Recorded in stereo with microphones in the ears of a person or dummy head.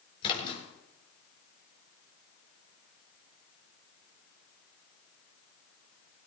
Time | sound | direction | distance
0.2 | a splash | 30° left (ahead or behind) | 5 m